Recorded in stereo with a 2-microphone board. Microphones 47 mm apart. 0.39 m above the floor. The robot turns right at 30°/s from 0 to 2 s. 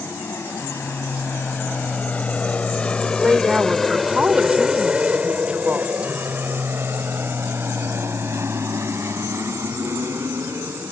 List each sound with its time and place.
0.0 s an aircraft: 60° left (ahead or behind); by 10.9 s 65° right (ahead or behind)
3.2 s a woman speaking: 25° right (ahead or behind)